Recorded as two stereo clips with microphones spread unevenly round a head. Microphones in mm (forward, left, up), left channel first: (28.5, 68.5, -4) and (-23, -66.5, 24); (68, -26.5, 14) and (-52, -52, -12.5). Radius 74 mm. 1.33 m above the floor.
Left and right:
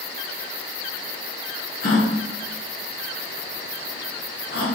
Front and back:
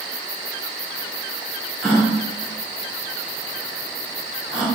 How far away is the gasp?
About 1.1 m.